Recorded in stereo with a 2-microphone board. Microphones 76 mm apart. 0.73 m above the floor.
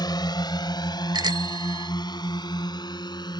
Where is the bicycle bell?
70° right (ahead or behind).